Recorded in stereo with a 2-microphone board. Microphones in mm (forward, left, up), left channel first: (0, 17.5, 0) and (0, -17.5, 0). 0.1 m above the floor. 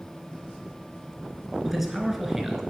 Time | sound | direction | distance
1.6 | a man speaking | 5° right (ahead or behind) | 1.2 m